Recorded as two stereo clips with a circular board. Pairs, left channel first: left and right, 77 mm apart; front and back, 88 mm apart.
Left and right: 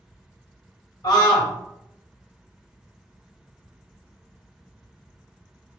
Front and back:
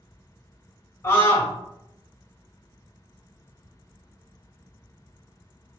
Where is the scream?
55° left, 1.6 m.